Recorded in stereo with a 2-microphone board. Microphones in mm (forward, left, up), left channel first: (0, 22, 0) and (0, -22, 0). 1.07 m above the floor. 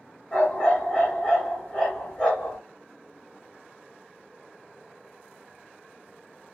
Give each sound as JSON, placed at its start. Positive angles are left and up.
{"t": 0.3, "sound": "a dog barking", "side_deg": 20, "distance_m": 2.0}